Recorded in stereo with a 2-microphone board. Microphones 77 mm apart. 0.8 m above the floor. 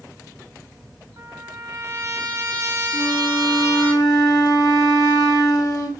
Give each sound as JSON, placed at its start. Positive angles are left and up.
{"t": 1.2, "sound": "a trumpet", "side_deg": -55, "distance_m": 0.9}
{"t": 2.9, "sound": "a flute", "side_deg": 50, "distance_m": 0.6}